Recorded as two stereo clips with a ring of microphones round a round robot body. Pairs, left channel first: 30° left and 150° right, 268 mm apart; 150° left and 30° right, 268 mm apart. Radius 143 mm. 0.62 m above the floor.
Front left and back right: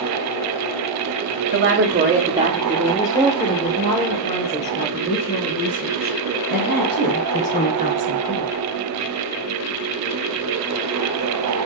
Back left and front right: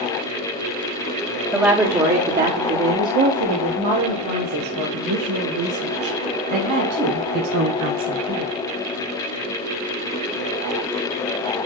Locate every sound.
1.5 s a woman speaking: 110° right, 1.4 m; by 8.6 s 20° right, 5 m